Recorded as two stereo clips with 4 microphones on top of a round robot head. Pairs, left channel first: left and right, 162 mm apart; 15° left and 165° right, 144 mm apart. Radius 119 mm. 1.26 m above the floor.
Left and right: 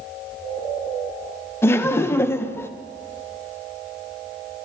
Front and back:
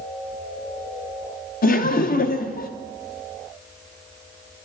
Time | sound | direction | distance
1.6 | laughter | 15° left | 0.8 m